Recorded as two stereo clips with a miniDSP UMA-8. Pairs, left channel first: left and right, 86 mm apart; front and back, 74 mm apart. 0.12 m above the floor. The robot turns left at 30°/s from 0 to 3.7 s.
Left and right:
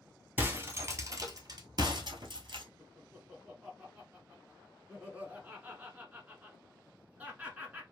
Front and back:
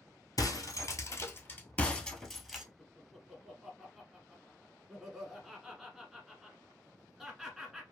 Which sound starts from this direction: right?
Laughter, at 2.8 s.